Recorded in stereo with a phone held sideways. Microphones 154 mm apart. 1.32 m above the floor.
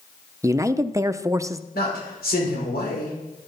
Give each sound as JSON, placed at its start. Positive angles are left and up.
{"t": 0.4, "sound": "a man speaking", "side_deg": -20, "distance_m": 0.5}
{"t": 1.7, "sound": "a man speaking", "side_deg": 85, "distance_m": 5.5}